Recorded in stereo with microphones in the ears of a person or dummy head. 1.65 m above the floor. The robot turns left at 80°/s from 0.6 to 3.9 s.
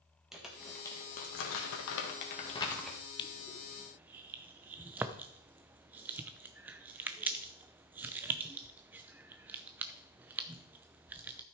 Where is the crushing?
25° left (ahead or behind), 0.7 m; by 11.4 s 15° right (ahead or behind), 0.7 m.